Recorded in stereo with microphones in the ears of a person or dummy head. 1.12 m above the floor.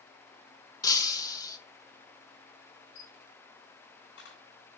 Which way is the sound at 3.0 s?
75° left (ahead or behind).